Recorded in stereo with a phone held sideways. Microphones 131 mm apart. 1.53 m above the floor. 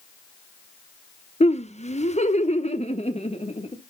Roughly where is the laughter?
Left.